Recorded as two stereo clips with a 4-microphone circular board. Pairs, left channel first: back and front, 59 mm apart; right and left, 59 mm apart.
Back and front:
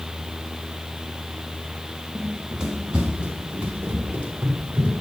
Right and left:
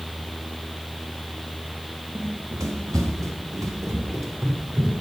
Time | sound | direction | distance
2.1 | running footsteps | 85° left | 1.8 m